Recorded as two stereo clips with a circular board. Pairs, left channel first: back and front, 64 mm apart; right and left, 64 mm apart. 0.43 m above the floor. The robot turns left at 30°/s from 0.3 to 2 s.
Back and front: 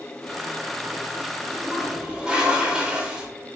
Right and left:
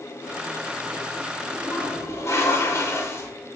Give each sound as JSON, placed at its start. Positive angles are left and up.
{"t": 1.5, "sound": "a toilet flushing", "azimuth_deg": -55, "distance_m": 0.7}